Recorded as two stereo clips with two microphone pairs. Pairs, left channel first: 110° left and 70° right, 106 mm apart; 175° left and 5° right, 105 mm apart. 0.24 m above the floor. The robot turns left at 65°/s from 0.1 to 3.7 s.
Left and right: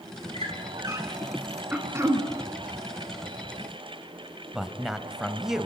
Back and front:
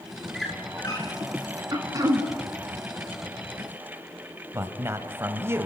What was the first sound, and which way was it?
A squeak, 90° right.